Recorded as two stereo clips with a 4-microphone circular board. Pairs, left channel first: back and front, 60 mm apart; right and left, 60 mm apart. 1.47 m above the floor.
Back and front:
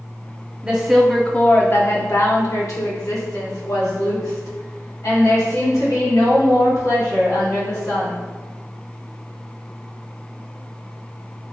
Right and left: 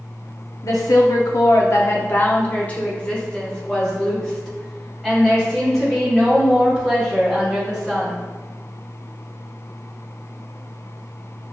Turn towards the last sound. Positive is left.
turn(degrees=180)